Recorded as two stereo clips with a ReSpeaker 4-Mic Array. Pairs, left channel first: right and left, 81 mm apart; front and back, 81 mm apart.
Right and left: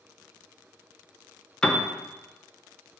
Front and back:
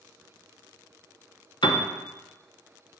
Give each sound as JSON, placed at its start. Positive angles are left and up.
{"t": 1.6, "sound": "a piano", "azimuth_deg": -10, "distance_m": 0.9}